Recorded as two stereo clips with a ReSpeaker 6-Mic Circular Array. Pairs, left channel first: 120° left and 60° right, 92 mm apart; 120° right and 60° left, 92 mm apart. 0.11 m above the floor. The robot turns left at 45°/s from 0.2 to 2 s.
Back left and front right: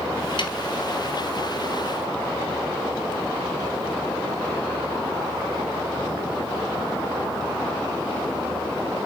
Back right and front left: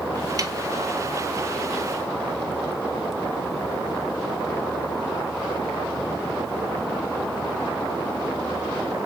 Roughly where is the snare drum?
Left.